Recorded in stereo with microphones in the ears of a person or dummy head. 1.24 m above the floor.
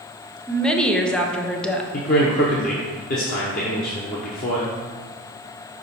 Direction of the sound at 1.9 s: 45° left (ahead or behind).